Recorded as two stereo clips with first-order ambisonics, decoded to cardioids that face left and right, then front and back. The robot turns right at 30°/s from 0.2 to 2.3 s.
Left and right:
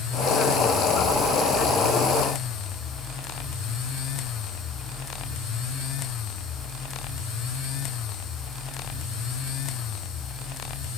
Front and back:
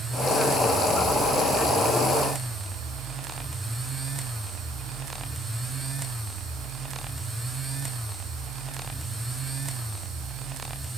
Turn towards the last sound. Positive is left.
No sound to turn to.